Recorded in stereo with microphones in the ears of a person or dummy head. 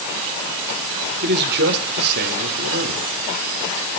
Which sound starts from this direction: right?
A man speaking, at 1.2 s.